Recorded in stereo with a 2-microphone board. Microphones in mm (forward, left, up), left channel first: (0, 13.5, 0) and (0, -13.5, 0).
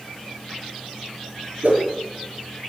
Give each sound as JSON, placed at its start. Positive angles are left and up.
{"t": 1.6, "sound": "a whoosh", "side_deg": -75, "distance_m": 5.5}